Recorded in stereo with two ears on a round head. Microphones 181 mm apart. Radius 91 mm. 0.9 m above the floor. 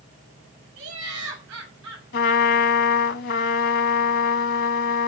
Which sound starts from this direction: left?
A trumpet, at 2.1 s.